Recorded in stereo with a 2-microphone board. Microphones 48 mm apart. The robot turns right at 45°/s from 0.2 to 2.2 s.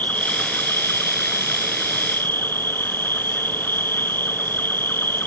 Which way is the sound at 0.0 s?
40° left.